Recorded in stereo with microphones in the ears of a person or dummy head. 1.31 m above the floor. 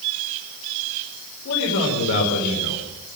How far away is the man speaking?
About 4.5 m.